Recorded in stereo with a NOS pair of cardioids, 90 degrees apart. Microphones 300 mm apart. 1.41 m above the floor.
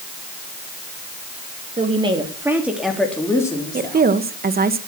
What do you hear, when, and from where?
1.8 s a woman speaking: 20° right, 3 m; by 4.1 s 15° left, 4 m
3.7 s a woman speaking: 30° right, 1.5 m